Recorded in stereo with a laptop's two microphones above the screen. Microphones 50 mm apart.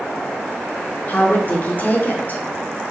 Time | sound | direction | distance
1.1 | a woman speaking | 40° left (ahead or behind) | 2.5 m